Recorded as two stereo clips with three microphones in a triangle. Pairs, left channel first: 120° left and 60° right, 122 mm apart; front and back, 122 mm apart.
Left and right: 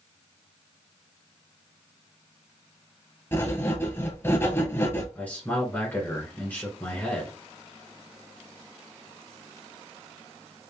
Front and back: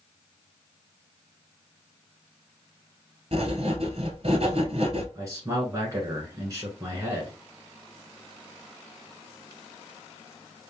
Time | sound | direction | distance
3.3 | writing | 175° right | 1.0 m
5.2 | a man speaking | 175° left | 1.2 m